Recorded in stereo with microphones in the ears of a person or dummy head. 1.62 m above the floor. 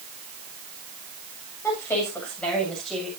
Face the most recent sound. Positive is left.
turn(degrees=5)  # may be behind; listen again after turning